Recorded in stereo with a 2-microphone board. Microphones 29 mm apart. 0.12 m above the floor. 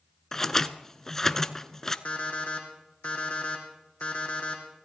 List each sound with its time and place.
0.3 s scissors: 15° left (ahead or behind), 0.6 m
2.0 s an alarm clock: 40° left (ahead or behind), 3 m